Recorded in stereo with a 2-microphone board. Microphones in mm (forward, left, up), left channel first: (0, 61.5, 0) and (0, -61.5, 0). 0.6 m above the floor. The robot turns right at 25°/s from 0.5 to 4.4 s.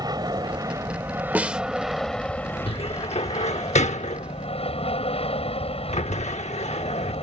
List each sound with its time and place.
0.0 s an aircraft: 35° right; by 7.2 s 60° left
1.4 s a snare drum: 15° right (ahead or behind); by 1.6 s 5° right (ahead or behind)
2.7 s a cupboard door: 50° left (ahead or behind); by 7.2 s 70° left (ahead or behind)